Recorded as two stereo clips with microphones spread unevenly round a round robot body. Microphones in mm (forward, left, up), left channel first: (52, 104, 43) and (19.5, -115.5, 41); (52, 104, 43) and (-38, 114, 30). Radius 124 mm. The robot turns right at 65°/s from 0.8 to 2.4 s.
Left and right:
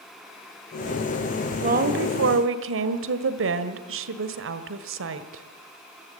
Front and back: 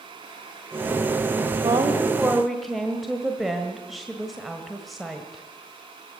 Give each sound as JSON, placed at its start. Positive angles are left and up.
{"t": 1.6, "sound": "a woman speaking", "azimuth_deg": -155, "distance_m": 1.5}